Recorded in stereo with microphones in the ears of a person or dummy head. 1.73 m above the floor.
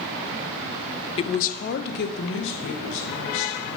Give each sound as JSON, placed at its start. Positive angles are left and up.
{"t": 1.2, "sound": "a woman speaking", "side_deg": 25, "distance_m": 0.5}